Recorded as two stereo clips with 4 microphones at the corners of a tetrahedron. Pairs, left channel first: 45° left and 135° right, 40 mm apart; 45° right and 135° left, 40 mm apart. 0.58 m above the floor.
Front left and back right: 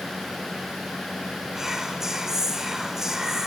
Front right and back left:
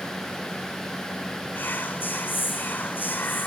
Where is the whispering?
60° right, 2.5 m.